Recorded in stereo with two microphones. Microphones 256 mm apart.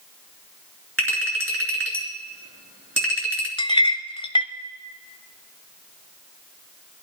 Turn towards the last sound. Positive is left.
turn(degrees=20)  # may be behind; listen again after turning